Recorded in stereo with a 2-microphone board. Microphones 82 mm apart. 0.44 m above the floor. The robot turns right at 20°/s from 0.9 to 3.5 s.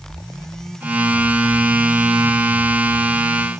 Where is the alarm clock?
No alarm clock in this recording.